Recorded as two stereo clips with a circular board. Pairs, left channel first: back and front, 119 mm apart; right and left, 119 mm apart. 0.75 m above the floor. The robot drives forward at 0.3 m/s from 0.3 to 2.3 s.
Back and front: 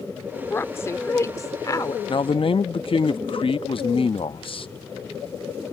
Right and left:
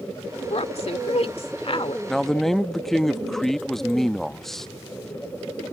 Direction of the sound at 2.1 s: 175° right.